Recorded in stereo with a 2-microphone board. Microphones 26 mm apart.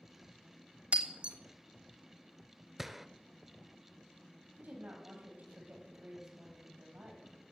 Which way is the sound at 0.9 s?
45° right (ahead or behind).